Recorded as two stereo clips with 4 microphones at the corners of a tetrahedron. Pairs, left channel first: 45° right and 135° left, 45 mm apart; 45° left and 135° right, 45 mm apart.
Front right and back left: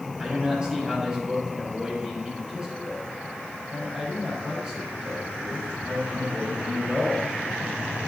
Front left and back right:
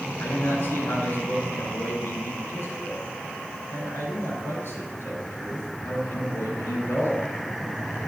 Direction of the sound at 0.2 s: 70° left.